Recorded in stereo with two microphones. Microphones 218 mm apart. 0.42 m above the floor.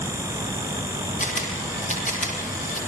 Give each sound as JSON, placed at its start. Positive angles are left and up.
{"t": 1.2, "sound": "a camera shutter", "side_deg": 35, "distance_m": 7.0}